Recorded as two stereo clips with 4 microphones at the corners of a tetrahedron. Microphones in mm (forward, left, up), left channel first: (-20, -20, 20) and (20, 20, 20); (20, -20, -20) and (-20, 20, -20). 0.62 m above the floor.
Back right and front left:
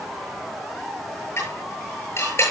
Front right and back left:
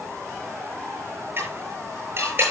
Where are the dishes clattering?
175° right, 8.5 m.